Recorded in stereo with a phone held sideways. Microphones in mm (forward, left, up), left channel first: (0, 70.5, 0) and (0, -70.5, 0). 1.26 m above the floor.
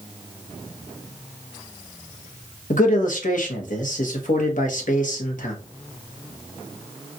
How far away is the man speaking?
About 0.9 m.